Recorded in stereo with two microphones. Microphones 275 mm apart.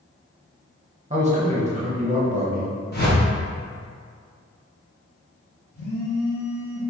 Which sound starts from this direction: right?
A man speaking, at 1.1 s.